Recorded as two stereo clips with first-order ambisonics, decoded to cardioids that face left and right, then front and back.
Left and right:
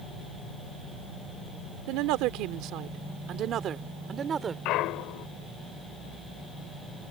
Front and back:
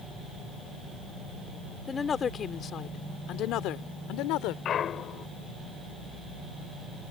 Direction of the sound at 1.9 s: 75° right.